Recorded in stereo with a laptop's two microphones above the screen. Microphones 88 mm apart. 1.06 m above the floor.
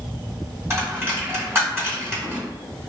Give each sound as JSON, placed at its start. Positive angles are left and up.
{"t": 0.7, "sound": "a dropped coin", "side_deg": -30, "distance_m": 1.6}